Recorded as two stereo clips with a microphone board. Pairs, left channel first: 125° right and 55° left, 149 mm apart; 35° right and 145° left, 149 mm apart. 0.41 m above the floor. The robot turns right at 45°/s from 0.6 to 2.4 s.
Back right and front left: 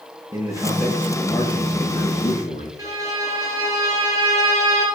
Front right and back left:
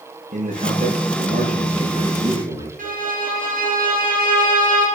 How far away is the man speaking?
About 6 m.